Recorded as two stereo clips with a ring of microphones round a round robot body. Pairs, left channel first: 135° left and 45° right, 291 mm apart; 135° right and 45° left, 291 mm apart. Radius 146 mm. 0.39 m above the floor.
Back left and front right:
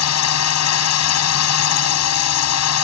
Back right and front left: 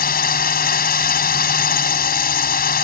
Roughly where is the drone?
Behind.